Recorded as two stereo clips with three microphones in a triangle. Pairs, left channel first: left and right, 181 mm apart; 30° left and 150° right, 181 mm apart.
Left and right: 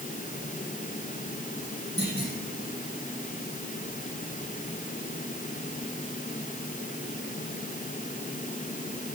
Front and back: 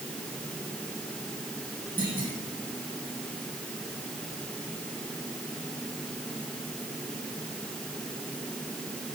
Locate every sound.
2.0 s a clunk: 110° right, 8 m